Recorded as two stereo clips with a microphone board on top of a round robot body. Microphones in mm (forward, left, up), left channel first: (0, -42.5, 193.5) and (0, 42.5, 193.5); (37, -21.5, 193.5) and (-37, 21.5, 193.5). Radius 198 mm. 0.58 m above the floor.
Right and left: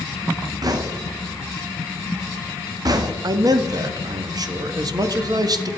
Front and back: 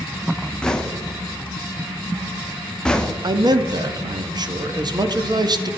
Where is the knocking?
50° left, 0.9 m.